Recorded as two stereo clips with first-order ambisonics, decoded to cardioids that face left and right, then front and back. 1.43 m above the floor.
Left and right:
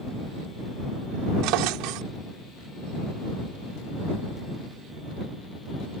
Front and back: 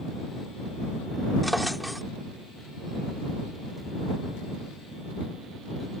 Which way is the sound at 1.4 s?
90° right.